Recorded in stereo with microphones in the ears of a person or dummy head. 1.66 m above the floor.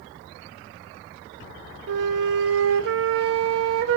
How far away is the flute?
About 0.7 m.